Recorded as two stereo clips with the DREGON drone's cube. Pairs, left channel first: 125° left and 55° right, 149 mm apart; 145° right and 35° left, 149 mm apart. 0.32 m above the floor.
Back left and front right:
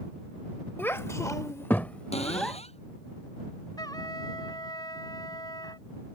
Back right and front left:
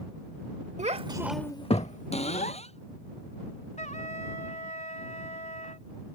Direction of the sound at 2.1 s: 170° left.